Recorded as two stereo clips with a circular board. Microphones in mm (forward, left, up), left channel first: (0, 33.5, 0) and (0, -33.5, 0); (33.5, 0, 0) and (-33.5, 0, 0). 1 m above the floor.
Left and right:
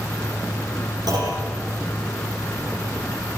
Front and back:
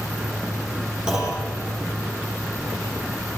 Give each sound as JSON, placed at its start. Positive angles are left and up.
{"t": 1.1, "sound": "a clunk", "azimuth_deg": -100, "distance_m": 8.0}